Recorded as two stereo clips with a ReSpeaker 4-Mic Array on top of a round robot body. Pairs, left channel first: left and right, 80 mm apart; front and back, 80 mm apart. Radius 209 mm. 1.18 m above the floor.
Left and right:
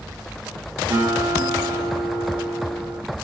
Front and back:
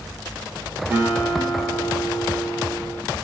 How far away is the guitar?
About 10 m.